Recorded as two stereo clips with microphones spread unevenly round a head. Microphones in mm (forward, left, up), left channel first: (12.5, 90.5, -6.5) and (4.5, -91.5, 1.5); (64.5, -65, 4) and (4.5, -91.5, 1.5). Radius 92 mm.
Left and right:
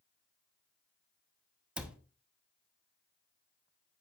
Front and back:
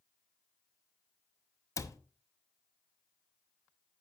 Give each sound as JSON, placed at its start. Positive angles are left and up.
{"t": 1.8, "sound": "a cupboard door", "azimuth_deg": -10, "distance_m": 0.9}